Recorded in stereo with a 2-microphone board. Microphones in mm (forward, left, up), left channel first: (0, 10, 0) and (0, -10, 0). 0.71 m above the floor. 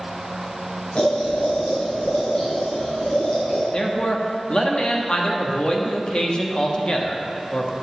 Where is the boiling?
65° left (ahead or behind), 3 m.